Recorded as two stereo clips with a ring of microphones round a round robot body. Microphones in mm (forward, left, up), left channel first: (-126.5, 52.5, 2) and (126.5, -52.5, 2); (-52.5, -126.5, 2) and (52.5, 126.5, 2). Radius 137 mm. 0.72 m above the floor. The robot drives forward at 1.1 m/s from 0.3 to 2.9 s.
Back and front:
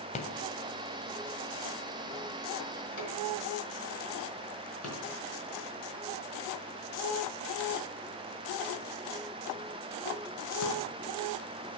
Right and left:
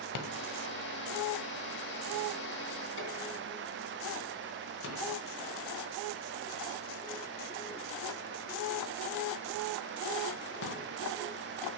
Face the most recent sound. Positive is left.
turn(degrees=-165)